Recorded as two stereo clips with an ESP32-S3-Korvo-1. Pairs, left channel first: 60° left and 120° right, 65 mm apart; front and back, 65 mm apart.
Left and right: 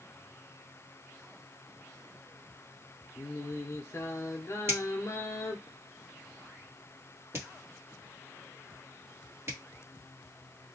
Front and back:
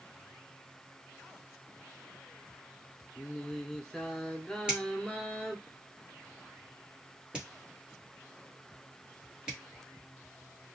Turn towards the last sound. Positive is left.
turn(degrees=-110)